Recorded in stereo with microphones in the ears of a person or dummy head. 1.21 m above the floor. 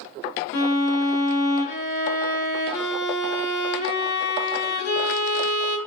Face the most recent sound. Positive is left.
turn(degrees=60)  # may be behind; listen again after turning